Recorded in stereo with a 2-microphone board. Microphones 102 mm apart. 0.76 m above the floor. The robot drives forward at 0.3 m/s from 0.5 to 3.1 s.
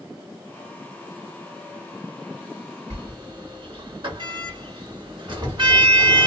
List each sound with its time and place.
2.9 s a sliding door: 55° right (ahead or behind), 1.8 m